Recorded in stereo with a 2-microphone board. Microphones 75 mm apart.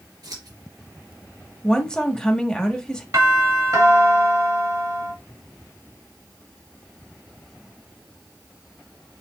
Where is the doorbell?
55° right (ahead or behind), 2.5 m.